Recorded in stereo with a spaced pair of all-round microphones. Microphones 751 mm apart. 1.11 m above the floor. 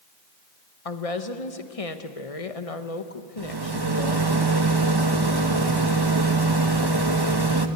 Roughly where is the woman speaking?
Left.